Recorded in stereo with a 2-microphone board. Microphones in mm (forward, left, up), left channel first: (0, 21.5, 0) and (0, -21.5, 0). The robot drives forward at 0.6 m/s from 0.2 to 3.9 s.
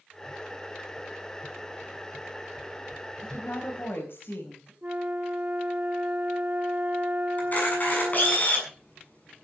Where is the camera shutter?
40° left (ahead or behind), 7 m.